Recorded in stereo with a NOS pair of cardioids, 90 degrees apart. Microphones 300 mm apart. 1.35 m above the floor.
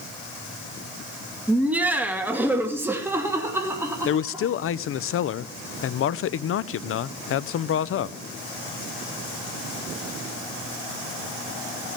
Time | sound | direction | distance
1.5 | laughter | 5° right | 1.9 m
4.0 | a man speaking | 50° left | 0.6 m